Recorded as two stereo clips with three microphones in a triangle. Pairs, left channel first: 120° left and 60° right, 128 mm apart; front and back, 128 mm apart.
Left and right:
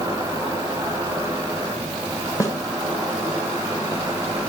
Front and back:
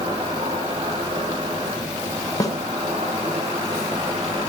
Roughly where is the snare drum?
Ahead left.